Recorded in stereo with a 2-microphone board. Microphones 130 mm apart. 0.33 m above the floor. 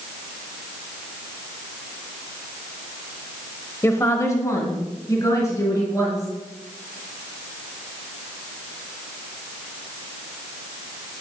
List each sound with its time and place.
3.8 s a woman speaking: 20° left (ahead or behind), 1.1 m; by 6.3 s 25° left (ahead or behind), 5 m